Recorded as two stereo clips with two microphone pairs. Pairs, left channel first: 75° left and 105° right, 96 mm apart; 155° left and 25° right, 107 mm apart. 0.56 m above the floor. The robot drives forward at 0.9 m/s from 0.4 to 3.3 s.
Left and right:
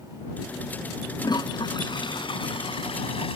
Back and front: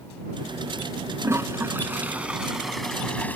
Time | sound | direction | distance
1.2 | a toilet flushing | 35° left | ?